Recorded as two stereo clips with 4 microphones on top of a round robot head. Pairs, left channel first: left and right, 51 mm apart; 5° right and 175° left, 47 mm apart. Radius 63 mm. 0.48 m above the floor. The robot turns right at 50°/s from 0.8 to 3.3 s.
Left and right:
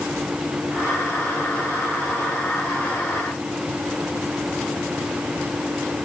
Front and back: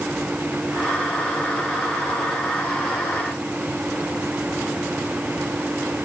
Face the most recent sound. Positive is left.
No sound to turn to.